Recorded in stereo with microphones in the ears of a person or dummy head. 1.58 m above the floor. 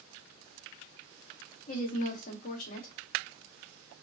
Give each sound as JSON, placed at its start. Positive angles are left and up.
{"t": 1.7, "sound": "a woman speaking", "side_deg": 45, "distance_m": 0.8}